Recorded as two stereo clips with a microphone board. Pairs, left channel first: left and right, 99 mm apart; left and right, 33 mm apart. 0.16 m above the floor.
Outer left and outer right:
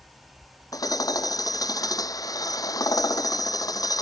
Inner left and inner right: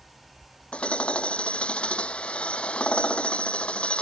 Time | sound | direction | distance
0.7 | hammering | 35° left (ahead or behind) | ?